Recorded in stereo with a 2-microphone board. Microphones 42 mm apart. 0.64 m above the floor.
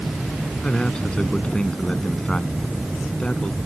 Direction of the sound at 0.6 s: 20° left (ahead or behind).